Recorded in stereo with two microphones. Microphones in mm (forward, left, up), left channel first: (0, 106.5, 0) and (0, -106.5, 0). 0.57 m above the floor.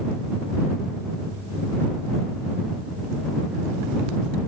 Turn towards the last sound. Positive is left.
No sound to turn to.